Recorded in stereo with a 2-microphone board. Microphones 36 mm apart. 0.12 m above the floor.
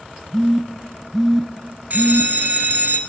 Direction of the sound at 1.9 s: 50° right (ahead or behind).